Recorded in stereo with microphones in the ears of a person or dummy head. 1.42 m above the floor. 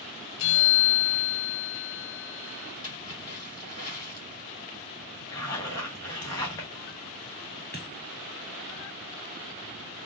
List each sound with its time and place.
0.4 s a bell: 65° left (ahead or behind), 0.8 m
2.8 s a splash: 15° left (ahead or behind), 2.5 m
5.3 s a zipper: 15° left (ahead or behind), 0.7 m
7.7 s a dropped coin: 5° left (ahead or behind), 1.4 m